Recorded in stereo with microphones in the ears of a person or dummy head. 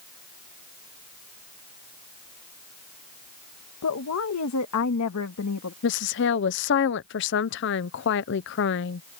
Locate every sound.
3.8 s a woman speaking: 85° left
5.8 s a woman speaking: 55° left (ahead or behind)